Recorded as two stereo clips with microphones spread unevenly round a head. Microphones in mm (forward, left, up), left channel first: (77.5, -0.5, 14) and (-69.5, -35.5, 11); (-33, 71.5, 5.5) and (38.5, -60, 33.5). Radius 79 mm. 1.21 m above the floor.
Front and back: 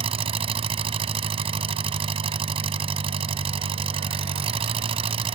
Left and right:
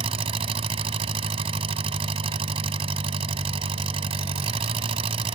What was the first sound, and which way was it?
An engine running, 115° right.